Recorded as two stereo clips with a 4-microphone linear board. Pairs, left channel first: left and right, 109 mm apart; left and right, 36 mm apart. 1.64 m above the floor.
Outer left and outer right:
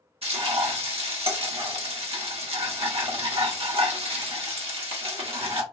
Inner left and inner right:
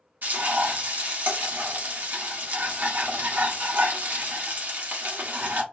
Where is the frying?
65° right (ahead or behind), 1.2 m.